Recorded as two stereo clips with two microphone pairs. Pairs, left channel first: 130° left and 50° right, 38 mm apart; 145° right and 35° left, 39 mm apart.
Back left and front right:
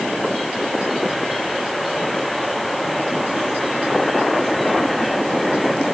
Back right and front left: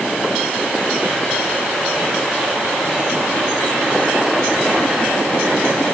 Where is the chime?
I don't hear a chime.